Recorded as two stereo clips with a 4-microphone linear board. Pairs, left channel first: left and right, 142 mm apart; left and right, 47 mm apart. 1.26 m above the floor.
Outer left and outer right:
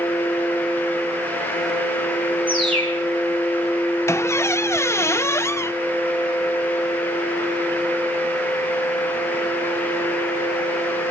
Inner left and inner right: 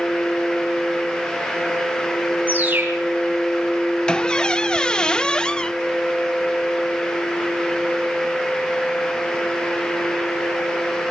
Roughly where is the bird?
Right.